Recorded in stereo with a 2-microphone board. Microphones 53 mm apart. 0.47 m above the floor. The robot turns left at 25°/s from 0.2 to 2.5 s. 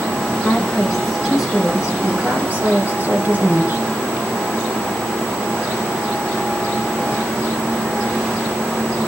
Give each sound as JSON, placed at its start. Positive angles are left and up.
{"t": 0.4, "sound": "a woman speaking", "azimuth_deg": 15, "distance_m": 5.5}